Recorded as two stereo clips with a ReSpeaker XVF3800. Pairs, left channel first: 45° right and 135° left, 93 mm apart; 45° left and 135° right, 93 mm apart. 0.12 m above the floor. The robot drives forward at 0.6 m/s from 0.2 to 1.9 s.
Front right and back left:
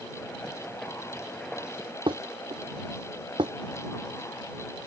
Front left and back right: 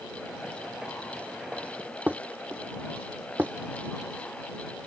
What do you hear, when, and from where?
2.1 s dishes clattering: 150° left